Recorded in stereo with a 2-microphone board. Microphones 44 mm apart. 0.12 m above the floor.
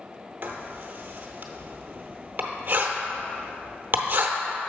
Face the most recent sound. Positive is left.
turn(degrees=-45)  # may be behind; listen again after turning